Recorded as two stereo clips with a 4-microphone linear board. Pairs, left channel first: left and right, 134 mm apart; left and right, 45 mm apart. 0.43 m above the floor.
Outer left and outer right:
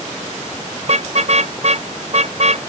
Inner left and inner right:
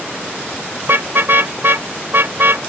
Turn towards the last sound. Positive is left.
turn(degrees=-55)  # may be behind; listen again after turning